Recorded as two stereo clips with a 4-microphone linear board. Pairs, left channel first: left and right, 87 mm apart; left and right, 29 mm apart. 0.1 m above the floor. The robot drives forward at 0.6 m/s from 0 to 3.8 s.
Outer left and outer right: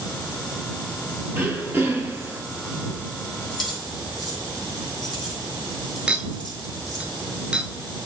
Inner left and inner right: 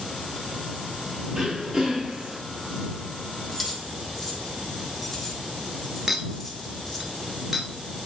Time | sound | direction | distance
1.3 | throat clearing | 20° right (ahead or behind) | 1.9 m
3.5 | keys jangling | centre (ahead or behind) | 2 m
6.1 | a clink | 15° right (ahead or behind) | 1.0 m